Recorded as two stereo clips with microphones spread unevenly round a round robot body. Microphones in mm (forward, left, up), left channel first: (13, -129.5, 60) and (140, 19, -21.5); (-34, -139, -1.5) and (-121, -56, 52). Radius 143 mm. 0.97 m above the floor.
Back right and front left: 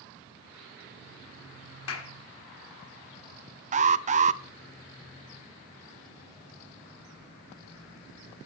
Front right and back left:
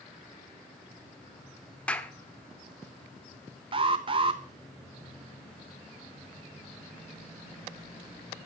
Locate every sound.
1.9 s a clap: 125° right, 2 m
3.7 s an alarm: 65° left, 0.9 m